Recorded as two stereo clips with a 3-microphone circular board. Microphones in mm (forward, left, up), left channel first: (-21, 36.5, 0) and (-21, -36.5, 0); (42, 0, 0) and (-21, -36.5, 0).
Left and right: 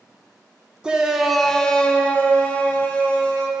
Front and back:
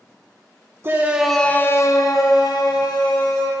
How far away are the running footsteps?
No running footsteps in this recording.